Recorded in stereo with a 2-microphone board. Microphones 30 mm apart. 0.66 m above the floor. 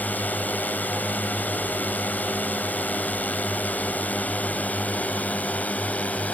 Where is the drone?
70° left (ahead or behind); by 6.3 s 50° left (ahead or behind).